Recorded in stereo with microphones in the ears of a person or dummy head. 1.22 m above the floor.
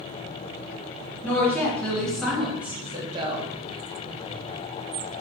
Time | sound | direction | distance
1.2 | a woman speaking | 15° left (ahead or behind) | 1.3 m